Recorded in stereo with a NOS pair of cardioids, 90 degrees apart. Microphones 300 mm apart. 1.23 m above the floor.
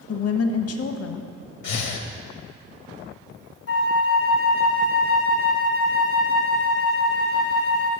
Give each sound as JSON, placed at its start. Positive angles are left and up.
{"t": 0.1, "sound": "a woman speaking", "azimuth_deg": 55, "distance_m": 0.9}
{"t": 1.6, "sound": "breathing", "azimuth_deg": 65, "distance_m": 1.0}
{"t": 3.7, "sound": "a flute", "azimuth_deg": 55, "distance_m": 0.9}